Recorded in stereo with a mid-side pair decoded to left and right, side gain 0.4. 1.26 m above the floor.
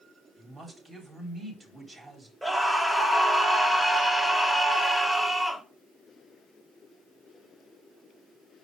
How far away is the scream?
About 3 m.